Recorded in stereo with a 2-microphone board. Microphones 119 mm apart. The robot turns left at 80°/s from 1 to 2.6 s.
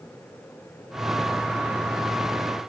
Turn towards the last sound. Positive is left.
No sound to turn to.